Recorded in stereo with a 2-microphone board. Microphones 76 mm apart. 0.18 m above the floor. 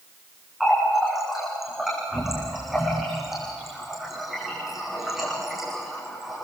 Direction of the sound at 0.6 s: 5° right (ahead or behind).